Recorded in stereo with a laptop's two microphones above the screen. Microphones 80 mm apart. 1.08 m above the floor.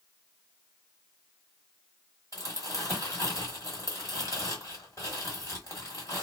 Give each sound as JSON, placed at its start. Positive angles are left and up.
{"t": 2.3, "sound": "crumpling", "side_deg": 40, "distance_m": 1.4}